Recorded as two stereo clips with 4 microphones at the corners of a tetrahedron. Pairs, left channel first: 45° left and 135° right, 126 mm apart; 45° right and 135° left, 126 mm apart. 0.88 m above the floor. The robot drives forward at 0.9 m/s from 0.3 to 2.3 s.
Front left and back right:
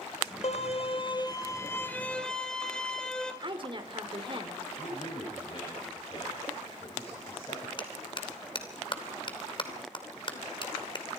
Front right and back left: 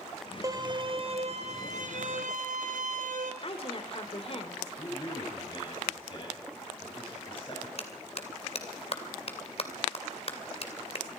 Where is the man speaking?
Straight ahead, 6 m.